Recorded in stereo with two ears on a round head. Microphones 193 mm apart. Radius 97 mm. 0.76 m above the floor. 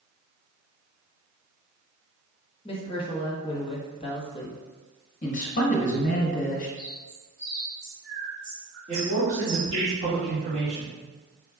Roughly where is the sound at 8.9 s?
Right.